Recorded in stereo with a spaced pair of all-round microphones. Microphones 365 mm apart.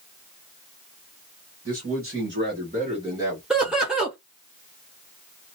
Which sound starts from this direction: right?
A man speaking, at 1.6 s.